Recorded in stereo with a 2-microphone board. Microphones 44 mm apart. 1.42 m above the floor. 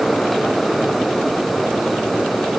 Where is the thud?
I don't hear a thud.